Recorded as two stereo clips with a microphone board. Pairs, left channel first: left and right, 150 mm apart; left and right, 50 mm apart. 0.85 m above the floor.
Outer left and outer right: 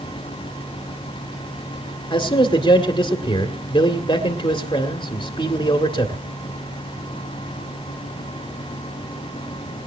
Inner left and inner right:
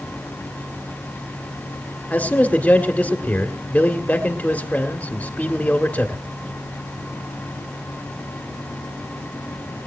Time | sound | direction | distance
2.1 | a man speaking | 30° left (ahead or behind) | 1.8 m